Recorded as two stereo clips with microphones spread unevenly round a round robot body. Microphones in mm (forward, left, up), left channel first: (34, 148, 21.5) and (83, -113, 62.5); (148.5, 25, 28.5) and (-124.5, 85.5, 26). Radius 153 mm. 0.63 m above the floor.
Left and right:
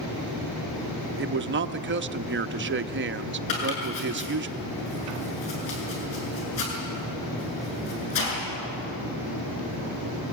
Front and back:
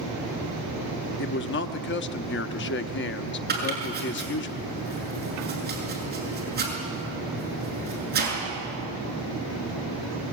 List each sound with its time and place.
1.2 s a man speaking: 40° right, 0.9 m
3.5 s chopping: 110° left, 7 m